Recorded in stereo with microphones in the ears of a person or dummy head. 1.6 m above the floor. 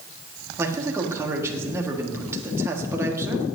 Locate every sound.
0.6 s a man speaking: 15° right (ahead or behind), 1.6 m